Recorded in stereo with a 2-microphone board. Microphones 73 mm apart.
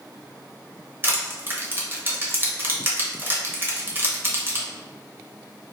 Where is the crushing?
30° right (ahead or behind), 1.0 m.